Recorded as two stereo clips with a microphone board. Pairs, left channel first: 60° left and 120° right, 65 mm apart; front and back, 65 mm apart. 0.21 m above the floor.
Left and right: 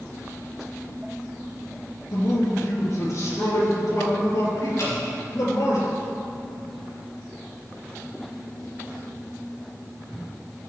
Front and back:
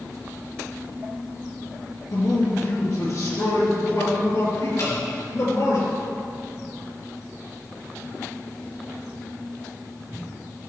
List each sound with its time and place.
2.1 s a man speaking: 20° left, 4 m; by 5.8 s 30° left, 5.5 m
4.8 s dripping: 25° left, 4 m